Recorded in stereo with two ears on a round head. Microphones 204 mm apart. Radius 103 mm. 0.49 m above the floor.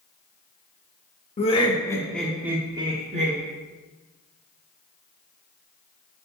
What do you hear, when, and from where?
1.4 s laughter: 30° left (ahead or behind), 1.1 m; by 3.4 s 35° right (ahead or behind), 1.1 m